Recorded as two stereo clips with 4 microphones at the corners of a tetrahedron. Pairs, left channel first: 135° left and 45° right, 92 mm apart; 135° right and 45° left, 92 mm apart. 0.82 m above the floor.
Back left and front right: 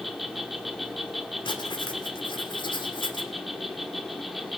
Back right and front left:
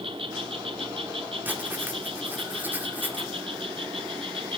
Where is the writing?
115° left, 2.5 m.